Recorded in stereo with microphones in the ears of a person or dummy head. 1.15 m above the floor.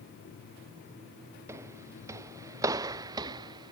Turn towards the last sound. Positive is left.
turn(degrees=-20)  # may be behind; listen again after turning